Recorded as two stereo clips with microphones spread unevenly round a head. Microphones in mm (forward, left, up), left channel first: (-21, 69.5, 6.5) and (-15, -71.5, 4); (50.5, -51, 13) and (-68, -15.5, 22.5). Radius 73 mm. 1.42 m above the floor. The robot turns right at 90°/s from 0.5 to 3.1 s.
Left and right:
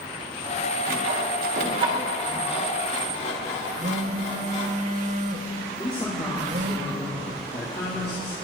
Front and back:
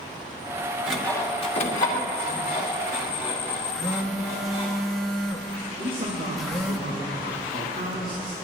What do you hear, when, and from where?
0.9 s sawing: 115° right, 3 m; by 4.7 s 90° left, 3 m
3.7 s a phone buzzing: 110° right, 1.1 m
5.8 s a man speaking: 150° left, 3.5 m